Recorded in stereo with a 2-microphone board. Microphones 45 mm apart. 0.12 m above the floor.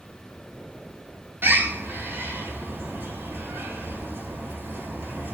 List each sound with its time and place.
1.4 s a bird: 60° right (ahead or behind), 1.0 m